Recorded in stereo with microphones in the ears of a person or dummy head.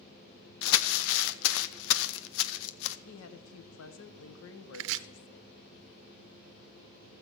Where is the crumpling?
70° left (ahead or behind), 0.7 m.